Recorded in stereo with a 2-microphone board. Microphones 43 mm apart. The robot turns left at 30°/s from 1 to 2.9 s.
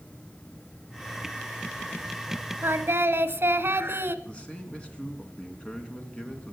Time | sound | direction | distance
2.6 | singing | 70° right (ahead or behind) | 0.8 m
4.2 | a man speaking | 25° left (ahead or behind) | 3 m